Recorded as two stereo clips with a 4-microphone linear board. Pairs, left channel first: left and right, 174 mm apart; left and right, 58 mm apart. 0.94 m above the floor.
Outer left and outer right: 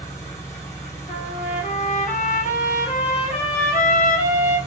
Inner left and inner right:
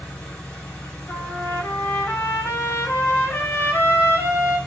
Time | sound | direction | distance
0.0 | an engine running | 15° left (ahead or behind) | 1.3 m
1.1 | a trumpet | 45° left (ahead or behind) | 1.0 m